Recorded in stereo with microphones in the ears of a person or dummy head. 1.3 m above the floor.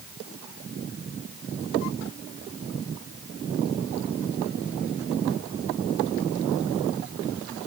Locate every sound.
Only background noise.